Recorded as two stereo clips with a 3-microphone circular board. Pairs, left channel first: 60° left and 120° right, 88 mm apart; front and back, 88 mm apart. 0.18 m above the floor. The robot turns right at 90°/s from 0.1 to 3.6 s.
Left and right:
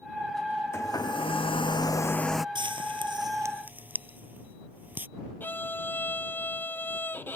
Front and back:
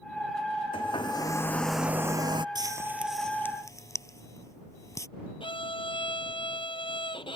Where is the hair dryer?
Straight ahead; by 2.5 s 155° left.